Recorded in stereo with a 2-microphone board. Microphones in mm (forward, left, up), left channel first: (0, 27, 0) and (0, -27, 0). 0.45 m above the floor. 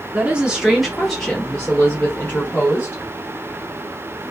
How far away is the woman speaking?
About 1.1 m.